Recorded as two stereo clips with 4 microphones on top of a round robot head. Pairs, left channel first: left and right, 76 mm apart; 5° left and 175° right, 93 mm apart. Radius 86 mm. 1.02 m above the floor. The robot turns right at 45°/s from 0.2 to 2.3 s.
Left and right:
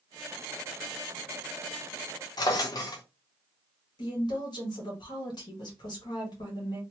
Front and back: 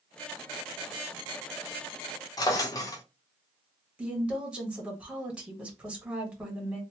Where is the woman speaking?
110° left, 1.7 m.